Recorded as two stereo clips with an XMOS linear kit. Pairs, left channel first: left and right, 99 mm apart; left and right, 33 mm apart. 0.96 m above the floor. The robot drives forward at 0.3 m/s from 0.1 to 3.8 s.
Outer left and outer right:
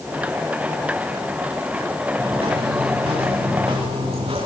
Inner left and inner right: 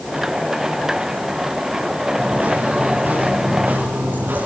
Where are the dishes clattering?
No dishes clattering in this recording.